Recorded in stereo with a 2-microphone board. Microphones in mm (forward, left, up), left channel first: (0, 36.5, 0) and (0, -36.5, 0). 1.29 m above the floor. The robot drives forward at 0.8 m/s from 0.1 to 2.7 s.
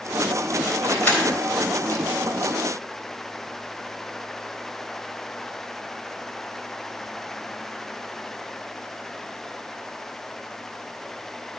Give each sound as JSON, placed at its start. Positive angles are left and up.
{"t": 0.8, "sound": "keys jangling", "side_deg": 25, "distance_m": 4.0}